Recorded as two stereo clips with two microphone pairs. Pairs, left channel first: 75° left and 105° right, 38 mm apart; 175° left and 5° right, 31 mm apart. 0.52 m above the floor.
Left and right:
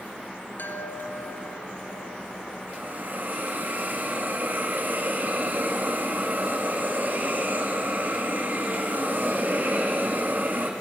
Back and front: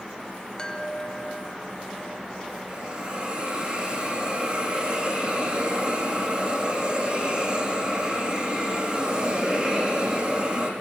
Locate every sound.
0.6 s a chime: 105° left, 2.5 m
2.7 s a hiss: 65° right, 6 m